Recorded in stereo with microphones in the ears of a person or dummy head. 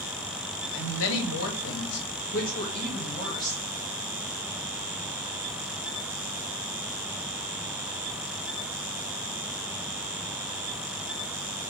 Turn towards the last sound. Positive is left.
turn(degrees=15)  # may be behind; listen again after turning